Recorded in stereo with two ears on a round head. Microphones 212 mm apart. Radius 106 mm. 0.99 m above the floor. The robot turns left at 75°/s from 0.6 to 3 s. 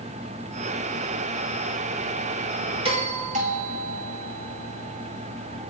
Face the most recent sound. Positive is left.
turn(degrees=-35)  # may be behind; listen again after turning